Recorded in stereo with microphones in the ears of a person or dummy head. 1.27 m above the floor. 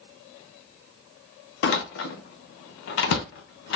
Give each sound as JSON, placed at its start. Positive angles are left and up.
{"t": 1.6, "sound": "a door slam", "side_deg": 65, "distance_m": 0.8}